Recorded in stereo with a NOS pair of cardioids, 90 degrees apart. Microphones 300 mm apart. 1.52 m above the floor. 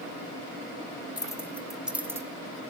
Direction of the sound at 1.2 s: 15° left.